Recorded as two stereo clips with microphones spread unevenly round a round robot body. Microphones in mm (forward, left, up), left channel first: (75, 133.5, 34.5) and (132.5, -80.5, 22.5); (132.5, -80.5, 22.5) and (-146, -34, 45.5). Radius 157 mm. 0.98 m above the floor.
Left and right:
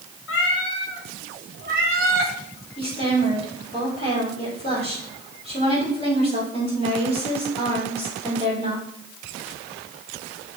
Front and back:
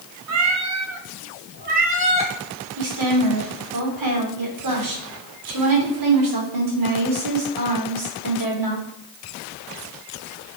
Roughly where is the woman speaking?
Behind.